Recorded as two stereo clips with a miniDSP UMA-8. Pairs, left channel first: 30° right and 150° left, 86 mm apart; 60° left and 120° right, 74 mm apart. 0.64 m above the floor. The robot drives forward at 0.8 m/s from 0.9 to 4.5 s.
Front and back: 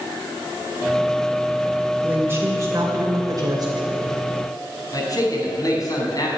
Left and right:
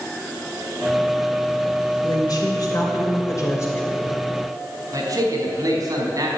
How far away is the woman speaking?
About 2.5 m.